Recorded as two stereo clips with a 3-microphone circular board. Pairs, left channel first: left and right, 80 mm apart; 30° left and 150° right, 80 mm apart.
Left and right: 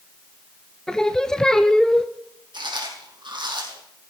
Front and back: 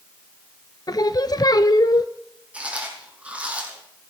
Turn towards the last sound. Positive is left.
turn(degrees=-75)